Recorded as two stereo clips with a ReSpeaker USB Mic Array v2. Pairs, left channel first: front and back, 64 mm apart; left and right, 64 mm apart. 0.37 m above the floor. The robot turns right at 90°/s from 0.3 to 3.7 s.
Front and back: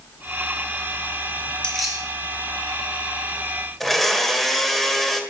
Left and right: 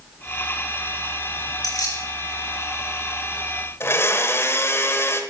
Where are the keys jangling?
75° left, 6 m; by 2.0 s 110° left, 6 m.